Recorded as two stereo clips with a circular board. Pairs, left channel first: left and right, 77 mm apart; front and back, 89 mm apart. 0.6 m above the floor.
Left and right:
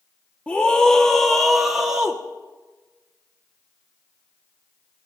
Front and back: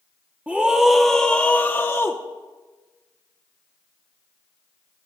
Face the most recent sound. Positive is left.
turn(degrees=-20)